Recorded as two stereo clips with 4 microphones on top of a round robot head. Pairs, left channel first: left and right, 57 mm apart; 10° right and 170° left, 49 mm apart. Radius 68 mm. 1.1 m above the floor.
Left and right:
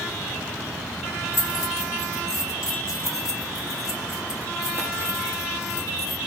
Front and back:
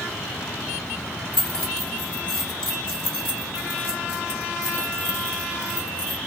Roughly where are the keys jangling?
Ahead left.